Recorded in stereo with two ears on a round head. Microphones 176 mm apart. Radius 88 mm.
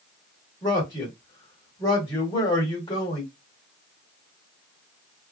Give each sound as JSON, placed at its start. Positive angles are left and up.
{"t": 0.6, "sound": "a man speaking", "side_deg": 20, "distance_m": 1.1}